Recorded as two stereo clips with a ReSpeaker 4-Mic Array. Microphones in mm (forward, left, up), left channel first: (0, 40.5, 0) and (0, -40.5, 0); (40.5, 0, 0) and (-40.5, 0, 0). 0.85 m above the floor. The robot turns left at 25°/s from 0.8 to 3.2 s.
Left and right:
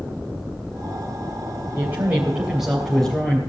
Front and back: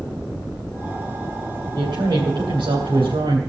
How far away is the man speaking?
About 3 m.